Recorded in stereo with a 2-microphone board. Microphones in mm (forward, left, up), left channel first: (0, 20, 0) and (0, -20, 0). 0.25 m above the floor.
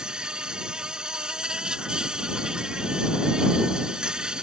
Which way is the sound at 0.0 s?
20° right (ahead or behind).